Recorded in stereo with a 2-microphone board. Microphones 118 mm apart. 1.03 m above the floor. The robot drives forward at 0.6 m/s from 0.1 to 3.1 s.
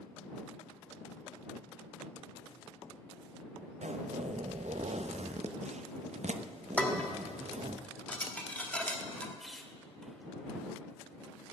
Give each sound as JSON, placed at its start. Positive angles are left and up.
{"t": 3.8, "sound": "a zipper", "side_deg": -75, "distance_m": 0.6}
{"t": 6.8, "sound": "dishes clattering", "side_deg": 10, "distance_m": 1.4}
{"t": 9.4, "sound": "a squeak", "side_deg": 0, "distance_m": 1.2}